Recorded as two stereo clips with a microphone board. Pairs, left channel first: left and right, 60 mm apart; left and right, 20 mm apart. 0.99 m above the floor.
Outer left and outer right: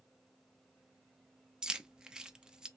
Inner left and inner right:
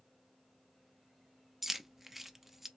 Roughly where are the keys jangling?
Centre.